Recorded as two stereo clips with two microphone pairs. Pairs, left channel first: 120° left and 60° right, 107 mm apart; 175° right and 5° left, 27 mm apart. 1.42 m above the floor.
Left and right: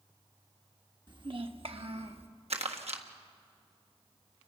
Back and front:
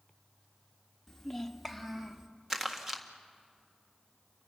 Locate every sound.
1.1 s a child speaking: 100° right, 1.3 m; by 2.3 s 70° right, 1.9 m
2.5 s crumpling: 70° right, 1.8 m